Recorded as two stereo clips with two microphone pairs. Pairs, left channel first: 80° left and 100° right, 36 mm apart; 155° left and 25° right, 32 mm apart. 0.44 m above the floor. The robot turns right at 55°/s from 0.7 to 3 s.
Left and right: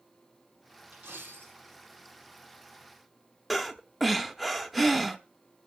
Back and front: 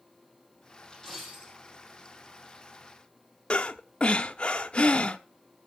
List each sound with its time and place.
0.9 s a dropped coin: 130° right, 3.5 m; by 1.6 s 95° right, 3.5 m
3.5 s breathing: 175° left, 0.9 m